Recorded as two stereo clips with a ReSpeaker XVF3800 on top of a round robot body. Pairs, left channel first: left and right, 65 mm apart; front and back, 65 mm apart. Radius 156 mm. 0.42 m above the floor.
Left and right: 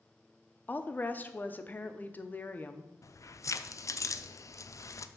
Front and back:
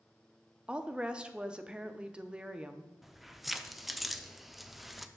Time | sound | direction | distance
0.7 | a woman speaking | 115° left | 0.8 m
3.0 | keys jangling | 90° left | 0.6 m